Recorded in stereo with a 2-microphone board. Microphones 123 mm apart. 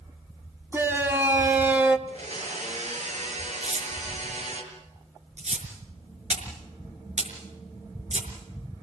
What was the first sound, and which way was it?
A shout, 20° right (ahead or behind).